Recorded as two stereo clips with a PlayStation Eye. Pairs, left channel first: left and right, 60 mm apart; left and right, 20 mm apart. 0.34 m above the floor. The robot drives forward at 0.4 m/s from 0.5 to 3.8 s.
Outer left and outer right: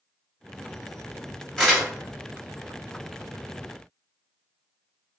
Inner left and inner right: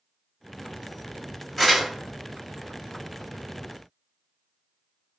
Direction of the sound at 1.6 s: 10° left (ahead or behind).